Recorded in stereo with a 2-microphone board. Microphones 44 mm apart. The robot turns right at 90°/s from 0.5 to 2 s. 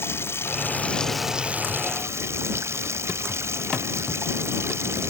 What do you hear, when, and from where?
0.0 s running water: 120° left; by 5.1 s 105° right